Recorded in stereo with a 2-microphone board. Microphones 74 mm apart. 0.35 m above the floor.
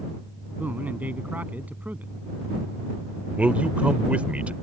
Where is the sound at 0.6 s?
20° right (ahead or behind).